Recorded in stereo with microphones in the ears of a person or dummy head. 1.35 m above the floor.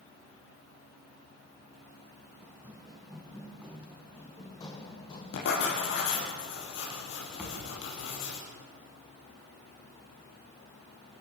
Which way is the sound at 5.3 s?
60° left (ahead or behind).